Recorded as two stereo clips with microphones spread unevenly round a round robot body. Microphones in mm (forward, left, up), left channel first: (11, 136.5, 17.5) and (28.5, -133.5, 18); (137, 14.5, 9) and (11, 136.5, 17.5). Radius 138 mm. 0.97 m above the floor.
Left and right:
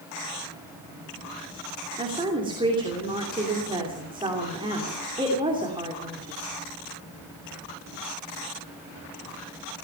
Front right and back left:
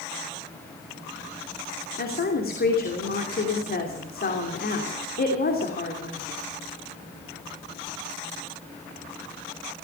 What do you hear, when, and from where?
2.0 s a woman speaking: 15° right, 3 m